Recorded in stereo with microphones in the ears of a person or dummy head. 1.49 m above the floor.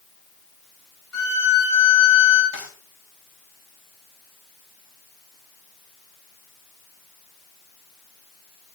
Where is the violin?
75° left (ahead or behind), 4.5 m.